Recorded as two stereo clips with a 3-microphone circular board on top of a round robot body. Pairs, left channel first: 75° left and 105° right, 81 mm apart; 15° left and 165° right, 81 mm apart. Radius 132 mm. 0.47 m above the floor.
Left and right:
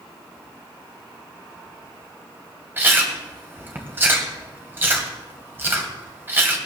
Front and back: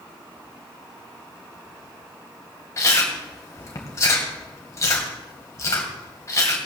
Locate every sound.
2.8 s chewing: 40° right, 2 m